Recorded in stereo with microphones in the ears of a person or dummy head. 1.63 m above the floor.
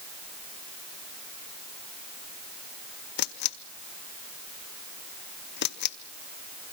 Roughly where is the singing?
I don't hear singing.